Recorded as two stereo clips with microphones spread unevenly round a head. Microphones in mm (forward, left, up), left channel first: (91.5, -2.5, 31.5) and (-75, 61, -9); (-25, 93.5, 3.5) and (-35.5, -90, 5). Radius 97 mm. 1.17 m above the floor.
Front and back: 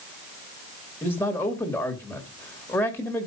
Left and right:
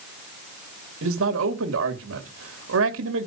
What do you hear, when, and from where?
1.0 s a man speaking: 100° right, 2 m